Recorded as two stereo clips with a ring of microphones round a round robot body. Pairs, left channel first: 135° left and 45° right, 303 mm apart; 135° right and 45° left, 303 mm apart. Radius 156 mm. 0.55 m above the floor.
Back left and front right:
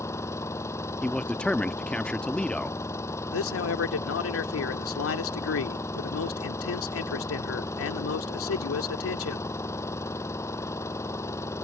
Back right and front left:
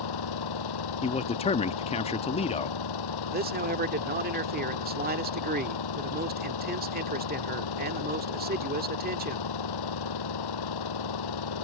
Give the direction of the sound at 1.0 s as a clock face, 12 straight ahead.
5 o'clock.